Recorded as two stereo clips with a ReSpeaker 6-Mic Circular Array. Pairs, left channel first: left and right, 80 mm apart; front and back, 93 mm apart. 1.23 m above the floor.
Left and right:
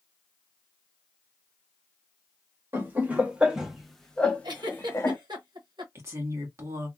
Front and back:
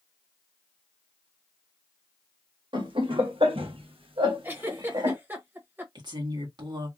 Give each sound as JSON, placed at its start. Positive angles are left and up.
{"t": 2.7, "sound": "laughter", "azimuth_deg": -150, "distance_m": 1.3}
{"t": 4.4, "sound": "a giggle", "azimuth_deg": -110, "distance_m": 1.0}
{"t": 6.0, "sound": "a woman speaking", "azimuth_deg": -145, "distance_m": 1.8}